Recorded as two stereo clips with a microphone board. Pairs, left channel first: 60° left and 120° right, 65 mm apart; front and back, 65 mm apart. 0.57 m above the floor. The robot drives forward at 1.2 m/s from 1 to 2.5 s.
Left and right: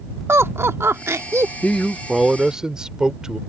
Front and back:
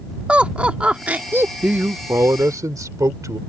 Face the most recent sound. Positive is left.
turn(degrees=160)